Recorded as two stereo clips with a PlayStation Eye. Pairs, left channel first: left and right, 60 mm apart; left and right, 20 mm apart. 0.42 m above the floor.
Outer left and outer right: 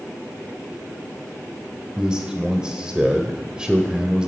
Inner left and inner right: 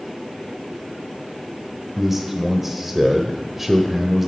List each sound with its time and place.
2.0 s a man speaking: 15° right (ahead or behind), 1.3 m